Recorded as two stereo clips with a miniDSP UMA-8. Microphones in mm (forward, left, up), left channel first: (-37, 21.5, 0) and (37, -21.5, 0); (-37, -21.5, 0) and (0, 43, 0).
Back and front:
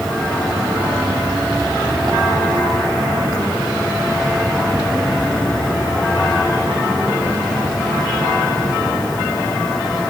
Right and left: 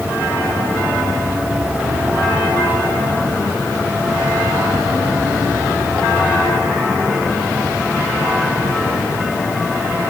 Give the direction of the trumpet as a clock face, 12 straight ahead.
No trumpet in this recording.